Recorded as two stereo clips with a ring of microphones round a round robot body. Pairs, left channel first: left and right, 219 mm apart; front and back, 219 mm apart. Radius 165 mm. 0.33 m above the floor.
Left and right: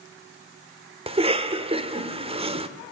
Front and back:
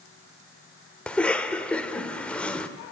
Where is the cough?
80° right, 1.2 m.